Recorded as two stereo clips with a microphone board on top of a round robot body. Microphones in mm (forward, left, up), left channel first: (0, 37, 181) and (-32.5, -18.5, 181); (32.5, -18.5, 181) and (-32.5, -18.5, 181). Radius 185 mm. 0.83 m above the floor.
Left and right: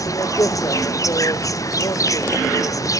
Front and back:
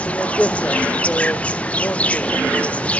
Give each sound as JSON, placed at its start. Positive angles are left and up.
{"t": 0.0, "sound": "an insect", "azimuth_deg": 65, "distance_m": 0.8}